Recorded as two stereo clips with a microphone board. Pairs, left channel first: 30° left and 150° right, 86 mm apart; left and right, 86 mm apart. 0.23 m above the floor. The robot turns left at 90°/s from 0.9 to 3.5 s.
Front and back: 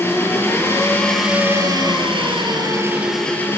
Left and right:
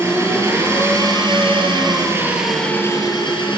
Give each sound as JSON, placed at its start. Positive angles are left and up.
{"t": 0.0, "sound": "an engine running", "azimuth_deg": -35, "distance_m": 5.0}